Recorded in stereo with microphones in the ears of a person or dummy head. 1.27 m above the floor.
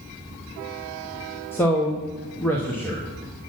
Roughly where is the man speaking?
Centre.